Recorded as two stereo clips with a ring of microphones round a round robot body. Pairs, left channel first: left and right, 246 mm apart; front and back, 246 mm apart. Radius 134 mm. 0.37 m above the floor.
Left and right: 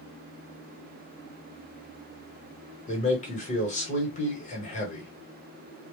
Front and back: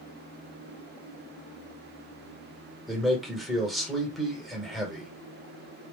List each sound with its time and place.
2.9 s a man speaking: 90° left, 1.2 m